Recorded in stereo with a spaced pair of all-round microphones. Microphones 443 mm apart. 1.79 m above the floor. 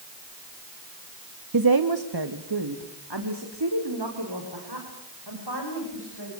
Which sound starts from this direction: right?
A woman speaking, at 1.5 s.